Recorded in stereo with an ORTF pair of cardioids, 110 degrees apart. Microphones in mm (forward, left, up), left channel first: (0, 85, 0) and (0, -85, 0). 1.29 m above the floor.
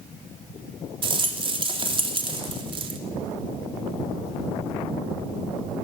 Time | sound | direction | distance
1.0 | a rattle | 35° right | 3 m